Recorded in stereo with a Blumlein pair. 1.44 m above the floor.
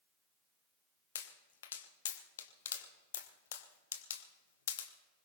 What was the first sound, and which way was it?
A pop, 60° left.